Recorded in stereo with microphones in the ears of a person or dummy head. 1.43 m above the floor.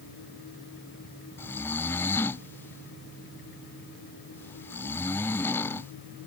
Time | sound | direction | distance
1.4 | snoring | 10° left (ahead or behind) | ?